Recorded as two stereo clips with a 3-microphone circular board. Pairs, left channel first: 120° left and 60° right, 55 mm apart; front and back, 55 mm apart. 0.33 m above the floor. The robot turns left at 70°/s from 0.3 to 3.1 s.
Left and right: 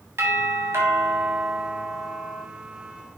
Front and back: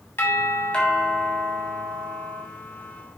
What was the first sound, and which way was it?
A doorbell, 40° right.